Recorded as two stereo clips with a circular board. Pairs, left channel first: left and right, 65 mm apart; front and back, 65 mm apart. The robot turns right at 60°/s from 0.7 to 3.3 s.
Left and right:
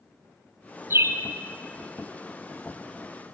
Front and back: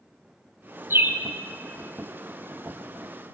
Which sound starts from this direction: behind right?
A bird, at 0.9 s.